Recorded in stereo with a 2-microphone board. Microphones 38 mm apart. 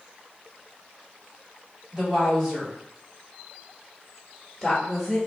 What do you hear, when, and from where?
1.9 s a woman speaking: 20° right (ahead or behind), 1.9 m; by 5.2 s 5° left (ahead or behind), 1.3 m